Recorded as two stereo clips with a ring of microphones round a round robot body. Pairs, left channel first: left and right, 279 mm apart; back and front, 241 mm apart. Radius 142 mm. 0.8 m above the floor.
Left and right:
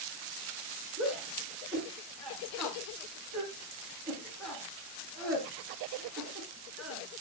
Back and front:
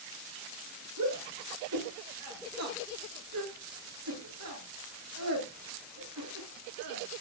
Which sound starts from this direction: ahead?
A shout, at 1.0 s.